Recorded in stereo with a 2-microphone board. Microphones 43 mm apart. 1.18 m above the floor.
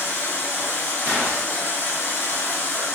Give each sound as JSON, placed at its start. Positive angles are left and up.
{"t": 0.0, "sound": "running water", "side_deg": 50, "distance_m": 1.0}
{"t": 1.1, "sound": "a gunshot", "side_deg": -55, "distance_m": 1.7}